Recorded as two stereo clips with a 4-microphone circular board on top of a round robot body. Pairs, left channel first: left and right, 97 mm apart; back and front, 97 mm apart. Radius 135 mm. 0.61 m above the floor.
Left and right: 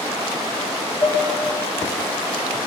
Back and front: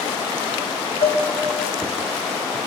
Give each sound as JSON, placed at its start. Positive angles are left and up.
{"t": 1.0, "sound": "dishes clattering", "azimuth_deg": 155, "distance_m": 3.0}